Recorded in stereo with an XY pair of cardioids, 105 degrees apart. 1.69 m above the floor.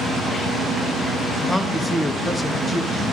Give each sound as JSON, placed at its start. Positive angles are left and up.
{"t": 1.5, "sound": "a man speaking", "azimuth_deg": 10, "distance_m": 1.0}